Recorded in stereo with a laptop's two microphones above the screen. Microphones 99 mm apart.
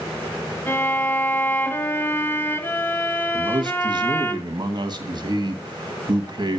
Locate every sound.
0.7 s a violin: 20° left (ahead or behind), 1.4 m
3.3 s a man speaking: 50° right (ahead or behind), 1.2 m